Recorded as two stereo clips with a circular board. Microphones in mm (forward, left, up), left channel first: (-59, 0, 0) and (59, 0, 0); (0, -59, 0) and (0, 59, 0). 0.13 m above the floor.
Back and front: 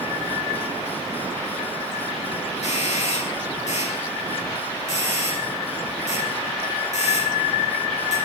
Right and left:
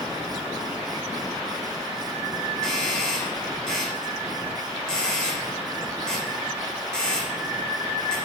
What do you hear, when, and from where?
2.6 s a doorbell: 175° right, 8 m